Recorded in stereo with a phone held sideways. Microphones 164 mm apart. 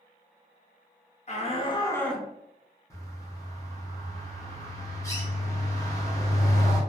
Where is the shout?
45° left (ahead or behind), 0.9 m; by 2.3 s 10° right (ahead or behind), 0.5 m.